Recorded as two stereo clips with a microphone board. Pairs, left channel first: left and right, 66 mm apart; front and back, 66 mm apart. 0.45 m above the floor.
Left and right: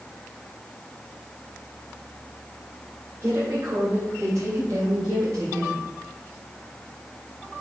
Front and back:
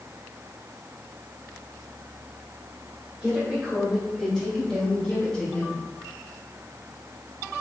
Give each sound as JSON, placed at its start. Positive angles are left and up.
{"t": 3.2, "sound": "a woman speaking", "azimuth_deg": -115, "distance_m": 2.0}